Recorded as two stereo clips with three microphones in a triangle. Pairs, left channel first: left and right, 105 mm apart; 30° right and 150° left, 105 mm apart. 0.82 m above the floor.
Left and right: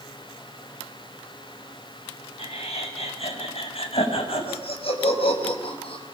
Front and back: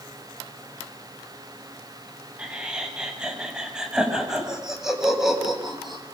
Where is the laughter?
70° left, 7.5 m; by 6.0 s 60° left, 6 m.